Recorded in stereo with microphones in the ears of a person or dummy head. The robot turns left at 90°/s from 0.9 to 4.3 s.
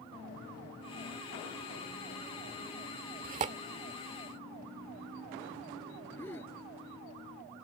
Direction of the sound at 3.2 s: 45° right (ahead or behind).